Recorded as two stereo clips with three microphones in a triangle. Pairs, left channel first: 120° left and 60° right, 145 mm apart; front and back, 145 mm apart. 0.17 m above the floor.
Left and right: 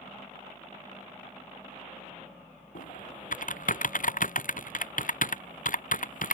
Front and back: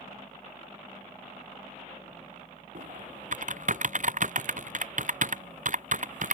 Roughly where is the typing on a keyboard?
Behind left.